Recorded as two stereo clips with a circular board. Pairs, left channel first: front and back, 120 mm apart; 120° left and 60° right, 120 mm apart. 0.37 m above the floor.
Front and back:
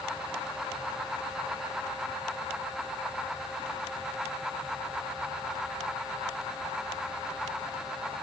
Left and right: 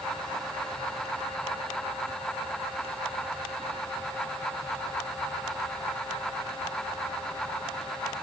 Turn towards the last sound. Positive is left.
No sound to turn to.